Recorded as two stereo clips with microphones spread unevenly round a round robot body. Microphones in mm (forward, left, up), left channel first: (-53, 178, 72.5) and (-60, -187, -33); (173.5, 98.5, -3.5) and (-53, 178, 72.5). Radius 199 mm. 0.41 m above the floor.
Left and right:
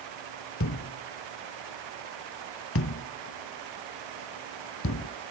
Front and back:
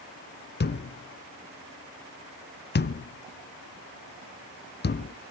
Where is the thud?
40° left, 0.7 m.